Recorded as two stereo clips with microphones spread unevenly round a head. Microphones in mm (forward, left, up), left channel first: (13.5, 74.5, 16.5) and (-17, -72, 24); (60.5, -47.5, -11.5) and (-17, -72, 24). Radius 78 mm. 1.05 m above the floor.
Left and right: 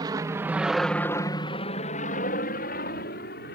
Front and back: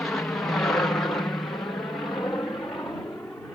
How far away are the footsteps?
I don't hear footsteps.